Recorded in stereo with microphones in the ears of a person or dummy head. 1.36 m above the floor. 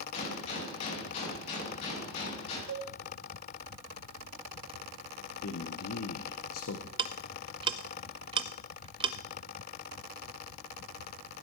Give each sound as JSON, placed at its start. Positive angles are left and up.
{"t": 0.1, "sound": "a gunshot", "side_deg": 45, "distance_m": 7.0}
{"t": 2.7, "sound": "a cowbell", "side_deg": -70, "distance_m": 1.5}
{"t": 5.4, "sound": "a man speaking", "side_deg": 80, "distance_m": 1.1}
{"t": 7.0, "sound": "ticking", "side_deg": -25, "distance_m": 0.6}